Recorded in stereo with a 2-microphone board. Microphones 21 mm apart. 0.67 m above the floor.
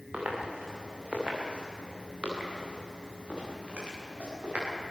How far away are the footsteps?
About 6.5 m.